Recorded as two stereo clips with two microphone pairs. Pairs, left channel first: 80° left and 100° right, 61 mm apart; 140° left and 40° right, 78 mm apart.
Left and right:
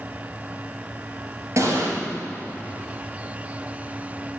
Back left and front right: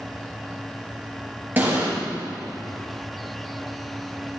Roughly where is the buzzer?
No buzzer in this recording.